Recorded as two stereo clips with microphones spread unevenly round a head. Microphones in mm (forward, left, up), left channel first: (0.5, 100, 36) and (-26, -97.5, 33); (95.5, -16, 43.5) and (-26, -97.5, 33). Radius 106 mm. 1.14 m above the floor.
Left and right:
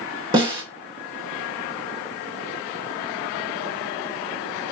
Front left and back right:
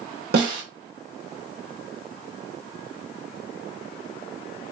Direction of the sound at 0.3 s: 165° right.